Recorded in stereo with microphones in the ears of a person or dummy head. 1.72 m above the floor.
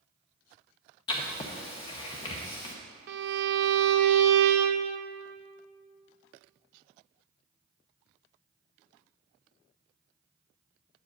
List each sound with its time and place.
1.1 s writing: 25° left (ahead or behind), 0.9 m
3.1 s a violin: 70° right (ahead or behind), 0.7 m